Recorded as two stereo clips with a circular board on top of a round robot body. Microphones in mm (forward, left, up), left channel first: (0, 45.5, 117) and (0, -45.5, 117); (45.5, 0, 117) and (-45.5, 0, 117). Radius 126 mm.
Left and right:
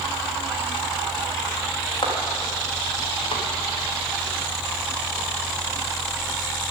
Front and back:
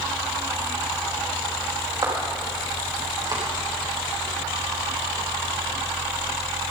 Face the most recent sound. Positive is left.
turn(degrees=130)